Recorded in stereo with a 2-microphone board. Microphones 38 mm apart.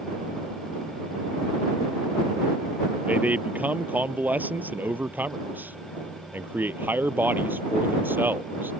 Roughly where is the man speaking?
Right.